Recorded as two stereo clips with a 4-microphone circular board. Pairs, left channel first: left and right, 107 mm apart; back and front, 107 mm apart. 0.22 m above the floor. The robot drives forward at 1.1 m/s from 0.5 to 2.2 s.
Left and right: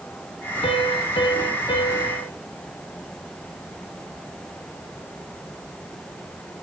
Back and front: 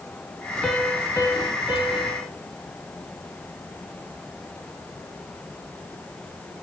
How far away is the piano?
About 1.3 m.